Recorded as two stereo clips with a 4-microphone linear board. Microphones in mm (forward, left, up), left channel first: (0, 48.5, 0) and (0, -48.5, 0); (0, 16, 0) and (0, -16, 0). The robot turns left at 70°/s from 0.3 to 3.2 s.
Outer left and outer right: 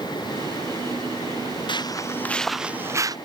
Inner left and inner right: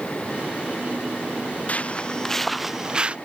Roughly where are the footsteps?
Left.